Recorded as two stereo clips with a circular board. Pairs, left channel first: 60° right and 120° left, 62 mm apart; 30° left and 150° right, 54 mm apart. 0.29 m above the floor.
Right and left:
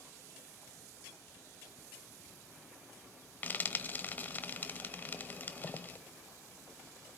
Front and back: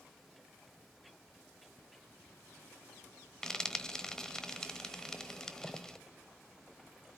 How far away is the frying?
About 0.9 m.